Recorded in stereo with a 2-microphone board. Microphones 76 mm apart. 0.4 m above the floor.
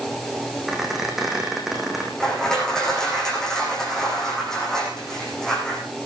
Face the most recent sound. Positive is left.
turn(degrees=5)  # may be behind; listen again after turning